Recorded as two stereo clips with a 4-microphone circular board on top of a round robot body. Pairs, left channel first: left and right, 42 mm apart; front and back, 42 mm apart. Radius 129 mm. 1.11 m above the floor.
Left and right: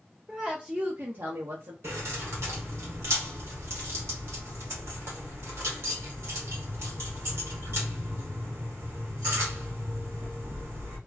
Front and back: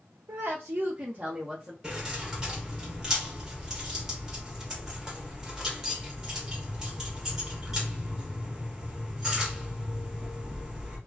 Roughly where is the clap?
I don't hear a clap.